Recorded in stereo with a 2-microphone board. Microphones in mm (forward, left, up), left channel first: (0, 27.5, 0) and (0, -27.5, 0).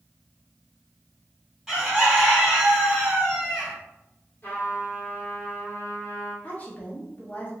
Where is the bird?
5° right (ahead or behind), 1.6 m.